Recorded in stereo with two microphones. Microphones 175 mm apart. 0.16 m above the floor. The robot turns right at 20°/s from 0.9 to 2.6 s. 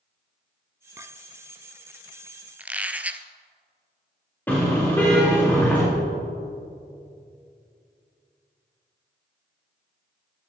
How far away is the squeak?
About 0.6 m.